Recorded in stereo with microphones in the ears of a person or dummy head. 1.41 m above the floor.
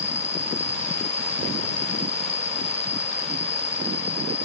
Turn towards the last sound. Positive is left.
turn(degrees=35)  # may be behind; listen again after turning